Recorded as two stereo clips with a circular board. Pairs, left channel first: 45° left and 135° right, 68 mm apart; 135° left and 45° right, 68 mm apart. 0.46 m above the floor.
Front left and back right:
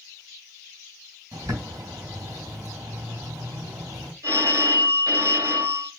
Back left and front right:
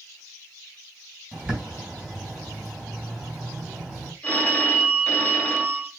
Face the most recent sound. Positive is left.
turn(degrees=-160)